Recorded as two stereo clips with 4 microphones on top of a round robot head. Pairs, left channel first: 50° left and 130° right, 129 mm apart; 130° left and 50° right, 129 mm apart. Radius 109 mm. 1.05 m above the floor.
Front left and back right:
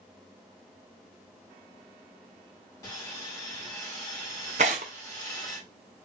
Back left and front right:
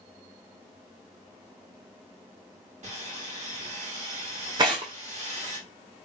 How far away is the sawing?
About 2.5 m.